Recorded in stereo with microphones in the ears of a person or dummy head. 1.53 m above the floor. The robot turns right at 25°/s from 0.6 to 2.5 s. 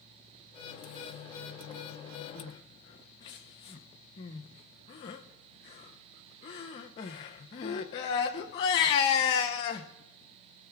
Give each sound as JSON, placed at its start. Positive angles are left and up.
{"t": 2.4, "sound": "crying", "side_deg": 25, "distance_m": 0.6}